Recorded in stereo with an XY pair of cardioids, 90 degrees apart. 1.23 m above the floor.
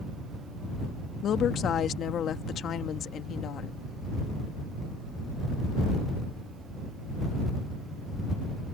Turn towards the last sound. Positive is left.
turn(degrees=70)